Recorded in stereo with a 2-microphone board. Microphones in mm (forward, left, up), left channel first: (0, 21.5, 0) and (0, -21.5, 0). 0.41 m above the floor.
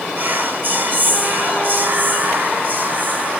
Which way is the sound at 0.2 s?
50° right (ahead or behind).